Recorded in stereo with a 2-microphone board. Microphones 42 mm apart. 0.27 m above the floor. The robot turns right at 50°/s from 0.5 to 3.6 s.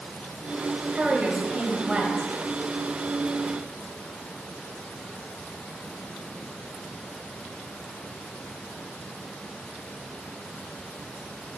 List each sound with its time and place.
0.9 s a woman speaking: 25° right (ahead or behind), 1.3 m; by 2.3 s 15° right (ahead or behind), 1.3 m